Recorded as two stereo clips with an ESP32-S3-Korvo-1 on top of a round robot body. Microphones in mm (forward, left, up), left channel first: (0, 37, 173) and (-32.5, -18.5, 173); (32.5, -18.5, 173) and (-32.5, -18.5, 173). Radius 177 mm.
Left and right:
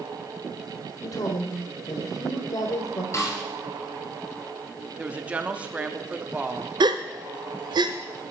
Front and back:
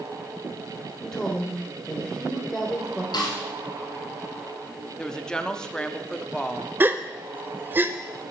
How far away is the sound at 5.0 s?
About 1.2 m.